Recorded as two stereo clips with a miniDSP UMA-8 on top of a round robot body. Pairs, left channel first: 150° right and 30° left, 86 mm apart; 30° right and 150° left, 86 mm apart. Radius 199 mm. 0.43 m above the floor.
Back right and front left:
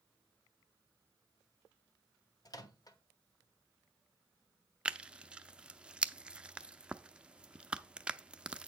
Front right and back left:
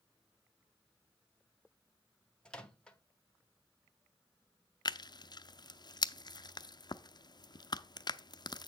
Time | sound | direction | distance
2.5 | a microwave | 110° right | 1.3 m
4.8 | tearing paper | 45° right | 0.7 m